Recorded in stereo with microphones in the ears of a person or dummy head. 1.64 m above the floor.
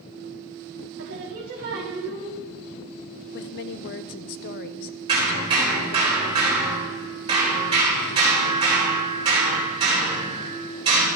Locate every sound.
1.0 s singing: 55° right (ahead or behind), 1.8 m
3.3 s a woman speaking: 60° left (ahead or behind), 0.6 m
5.1 s hammering: 30° right (ahead or behind), 4 m